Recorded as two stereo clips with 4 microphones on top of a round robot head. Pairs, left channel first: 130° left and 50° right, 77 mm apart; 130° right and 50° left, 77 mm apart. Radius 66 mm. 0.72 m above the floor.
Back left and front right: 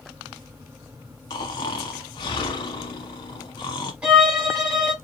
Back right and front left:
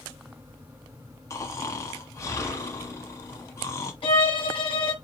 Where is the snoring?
170° left, 1.0 m.